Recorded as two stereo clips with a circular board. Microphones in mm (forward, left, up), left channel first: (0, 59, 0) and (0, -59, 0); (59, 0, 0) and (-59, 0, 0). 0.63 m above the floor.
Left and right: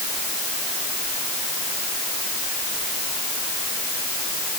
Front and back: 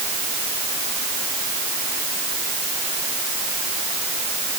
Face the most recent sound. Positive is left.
No sound to turn to.